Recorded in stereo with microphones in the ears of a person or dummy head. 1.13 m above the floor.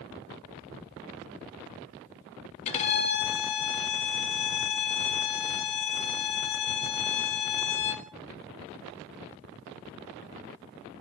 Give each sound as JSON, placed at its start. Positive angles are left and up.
{"t": 2.6, "sound": "a violin", "side_deg": 35, "distance_m": 1.4}